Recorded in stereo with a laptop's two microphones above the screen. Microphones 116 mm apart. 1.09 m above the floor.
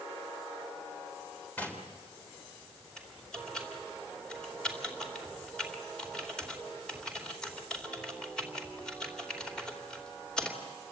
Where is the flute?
No flute in this recording.